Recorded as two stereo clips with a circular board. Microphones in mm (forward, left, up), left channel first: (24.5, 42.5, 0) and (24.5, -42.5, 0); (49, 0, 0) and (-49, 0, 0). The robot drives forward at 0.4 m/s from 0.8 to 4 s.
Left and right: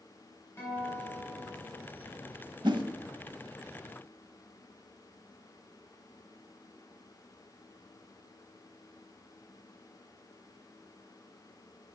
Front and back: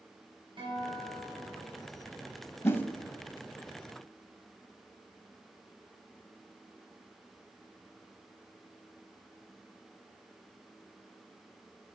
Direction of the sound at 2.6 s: 65° right.